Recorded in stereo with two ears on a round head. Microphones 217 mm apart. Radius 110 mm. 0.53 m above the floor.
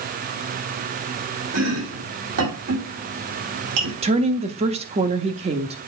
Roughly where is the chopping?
Right.